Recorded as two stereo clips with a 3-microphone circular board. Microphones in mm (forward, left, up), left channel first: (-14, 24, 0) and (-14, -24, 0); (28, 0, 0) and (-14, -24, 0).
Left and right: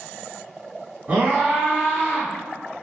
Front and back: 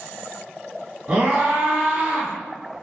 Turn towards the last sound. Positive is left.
turn(degrees=-165)